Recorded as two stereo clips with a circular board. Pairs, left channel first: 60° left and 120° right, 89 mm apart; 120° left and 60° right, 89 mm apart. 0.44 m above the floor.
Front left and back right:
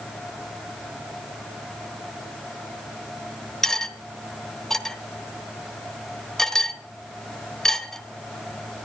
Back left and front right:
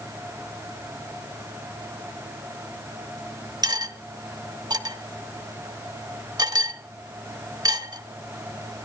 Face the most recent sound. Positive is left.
turn(degrees=-25)